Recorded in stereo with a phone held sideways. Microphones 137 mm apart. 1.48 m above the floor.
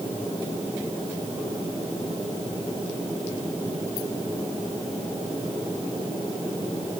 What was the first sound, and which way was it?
Only background noise.